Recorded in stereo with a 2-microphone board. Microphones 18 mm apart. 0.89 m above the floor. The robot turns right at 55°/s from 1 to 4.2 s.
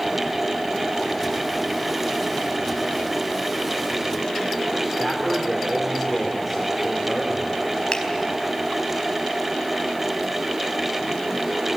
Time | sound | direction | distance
5.0 | a man speaking | centre (ahead or behind) | 3.5 m
7.9 | a finger snap | 45° left (ahead or behind) | 4 m